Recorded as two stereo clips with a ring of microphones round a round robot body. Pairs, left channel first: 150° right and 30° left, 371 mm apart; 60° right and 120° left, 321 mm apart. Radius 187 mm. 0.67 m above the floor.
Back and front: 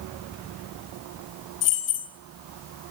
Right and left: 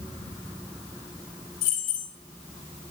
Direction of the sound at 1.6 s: 115° right.